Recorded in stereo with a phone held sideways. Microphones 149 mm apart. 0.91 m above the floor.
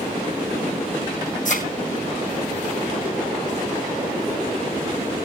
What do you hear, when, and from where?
1.4 s a thud: 55° left (ahead or behind), 3.5 m